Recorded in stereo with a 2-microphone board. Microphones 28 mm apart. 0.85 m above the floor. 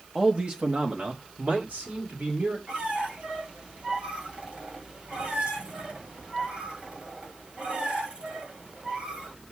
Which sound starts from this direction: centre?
A man speaking, at 0.1 s.